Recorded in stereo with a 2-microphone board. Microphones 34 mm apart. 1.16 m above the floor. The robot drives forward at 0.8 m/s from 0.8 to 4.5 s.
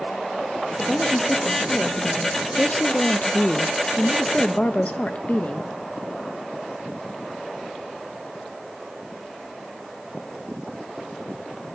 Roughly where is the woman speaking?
Left.